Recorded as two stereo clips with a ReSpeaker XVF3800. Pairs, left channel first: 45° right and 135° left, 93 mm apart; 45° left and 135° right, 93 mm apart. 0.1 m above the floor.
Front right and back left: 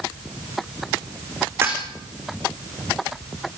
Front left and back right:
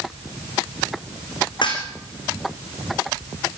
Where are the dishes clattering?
70° left, 5 m.